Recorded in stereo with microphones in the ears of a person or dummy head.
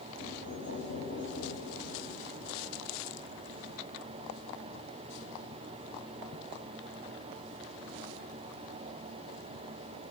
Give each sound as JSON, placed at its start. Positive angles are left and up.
{"t": 0.2, "sound": "knocking", "side_deg": 70, "distance_m": 9.0}